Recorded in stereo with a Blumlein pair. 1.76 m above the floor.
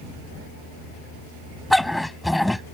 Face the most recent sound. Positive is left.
turn(degrees=5)